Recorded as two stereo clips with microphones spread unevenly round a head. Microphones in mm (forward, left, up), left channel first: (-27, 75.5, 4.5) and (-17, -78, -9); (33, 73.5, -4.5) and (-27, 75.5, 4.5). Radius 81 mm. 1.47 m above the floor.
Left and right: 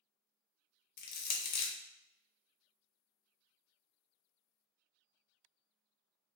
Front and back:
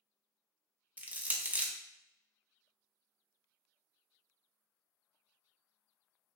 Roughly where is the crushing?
Behind left.